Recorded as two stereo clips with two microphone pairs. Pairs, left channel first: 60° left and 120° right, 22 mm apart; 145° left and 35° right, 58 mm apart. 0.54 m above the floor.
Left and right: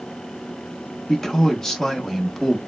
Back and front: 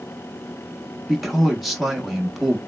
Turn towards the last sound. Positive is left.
turn(degrees=45)